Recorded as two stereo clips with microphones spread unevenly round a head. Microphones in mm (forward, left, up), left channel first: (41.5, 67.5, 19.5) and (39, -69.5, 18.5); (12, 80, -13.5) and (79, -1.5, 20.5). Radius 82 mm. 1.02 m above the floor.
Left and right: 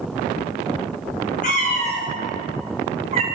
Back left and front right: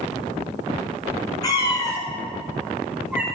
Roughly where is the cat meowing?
Left.